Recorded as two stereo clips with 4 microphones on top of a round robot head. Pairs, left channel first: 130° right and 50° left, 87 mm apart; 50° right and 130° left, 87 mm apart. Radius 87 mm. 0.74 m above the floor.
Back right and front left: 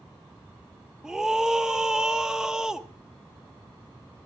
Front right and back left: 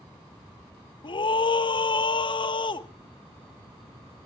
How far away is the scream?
About 1.1 m.